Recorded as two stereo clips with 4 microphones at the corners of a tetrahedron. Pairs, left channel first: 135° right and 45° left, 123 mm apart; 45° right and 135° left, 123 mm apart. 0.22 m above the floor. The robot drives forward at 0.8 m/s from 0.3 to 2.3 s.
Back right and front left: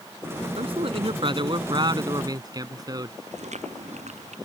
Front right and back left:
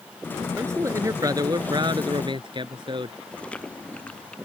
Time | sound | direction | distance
0.6 | a man speaking | 70° left | ?
3.3 | chewing | 35° left | ?